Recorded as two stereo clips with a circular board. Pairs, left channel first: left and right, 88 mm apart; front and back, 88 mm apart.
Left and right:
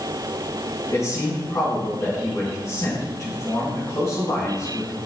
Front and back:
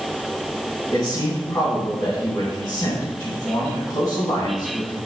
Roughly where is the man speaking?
Ahead left.